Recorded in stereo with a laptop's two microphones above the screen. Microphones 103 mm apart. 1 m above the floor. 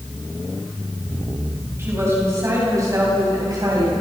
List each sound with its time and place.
1.8 s a woman speaking: 25° right (ahead or behind), 7 m; by 3.9 s 40° right (ahead or behind), 7.5 m